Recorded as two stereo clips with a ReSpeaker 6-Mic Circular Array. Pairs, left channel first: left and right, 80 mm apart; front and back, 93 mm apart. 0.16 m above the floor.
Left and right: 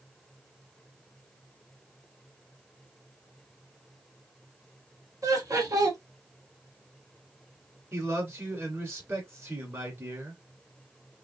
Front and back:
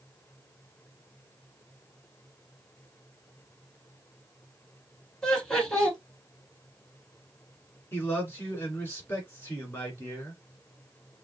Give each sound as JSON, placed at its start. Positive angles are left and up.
{"t": 5.2, "sound": "laughter", "azimuth_deg": -80, "distance_m": 1.6}
{"t": 7.9, "sound": "a man speaking", "azimuth_deg": -50, "distance_m": 1.9}